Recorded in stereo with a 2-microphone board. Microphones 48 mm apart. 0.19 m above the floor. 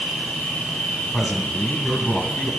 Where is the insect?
30° left (ahead or behind), 2.5 m.